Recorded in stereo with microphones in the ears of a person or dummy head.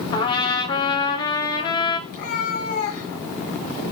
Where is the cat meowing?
50° left (ahead or behind), 2.5 m.